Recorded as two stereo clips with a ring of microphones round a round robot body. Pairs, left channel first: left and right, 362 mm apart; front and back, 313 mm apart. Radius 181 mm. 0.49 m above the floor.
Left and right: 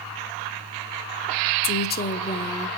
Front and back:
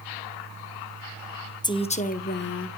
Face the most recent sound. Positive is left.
turn(degrees=10)